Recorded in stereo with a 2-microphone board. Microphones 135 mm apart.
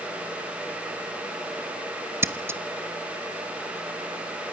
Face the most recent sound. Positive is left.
turn(degrees=-20)  # may be behind; listen again after turning